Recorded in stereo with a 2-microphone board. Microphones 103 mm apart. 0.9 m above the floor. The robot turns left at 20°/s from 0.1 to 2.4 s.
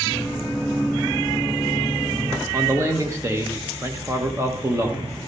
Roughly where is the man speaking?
Right.